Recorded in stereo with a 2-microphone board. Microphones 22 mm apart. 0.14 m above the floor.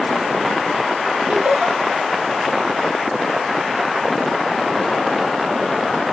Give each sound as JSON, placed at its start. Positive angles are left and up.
{"t": 1.3, "sound": "laughter", "side_deg": -65, "distance_m": 4.5}